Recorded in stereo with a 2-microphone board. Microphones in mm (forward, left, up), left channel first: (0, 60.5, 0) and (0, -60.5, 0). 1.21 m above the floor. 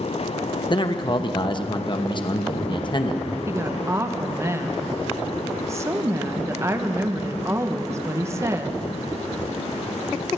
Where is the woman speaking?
25° right (ahead or behind), 0.9 m.